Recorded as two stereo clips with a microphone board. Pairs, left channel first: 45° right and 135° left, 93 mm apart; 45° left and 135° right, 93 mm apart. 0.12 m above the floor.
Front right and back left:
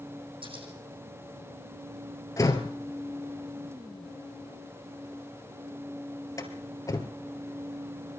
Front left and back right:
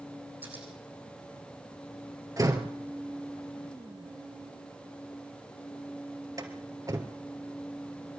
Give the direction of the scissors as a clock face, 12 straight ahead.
7 o'clock.